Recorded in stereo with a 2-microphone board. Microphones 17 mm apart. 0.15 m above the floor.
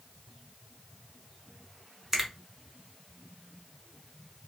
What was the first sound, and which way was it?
A finger snap, 25° right (ahead or behind).